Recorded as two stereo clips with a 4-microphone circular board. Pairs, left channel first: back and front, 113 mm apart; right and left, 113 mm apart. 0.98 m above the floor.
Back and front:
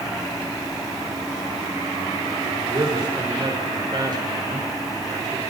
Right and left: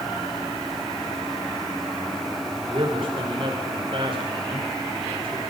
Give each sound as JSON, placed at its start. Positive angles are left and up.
{"t": 2.7, "sound": "a man speaking", "azimuth_deg": 50, "distance_m": 5.0}